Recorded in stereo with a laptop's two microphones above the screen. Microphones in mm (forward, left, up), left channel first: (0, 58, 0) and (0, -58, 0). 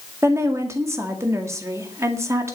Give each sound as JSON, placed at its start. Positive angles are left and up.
{"t": 0.2, "sound": "a woman speaking", "side_deg": -25, "distance_m": 1.9}